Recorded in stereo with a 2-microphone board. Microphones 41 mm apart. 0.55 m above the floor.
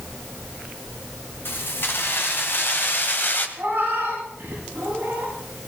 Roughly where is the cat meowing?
Right.